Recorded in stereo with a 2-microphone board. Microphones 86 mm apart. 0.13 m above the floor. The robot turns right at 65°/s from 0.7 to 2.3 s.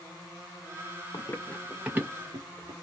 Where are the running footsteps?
45° left (ahead or behind), 0.7 m; by 2.7 s 50° right (ahead or behind), 1.7 m.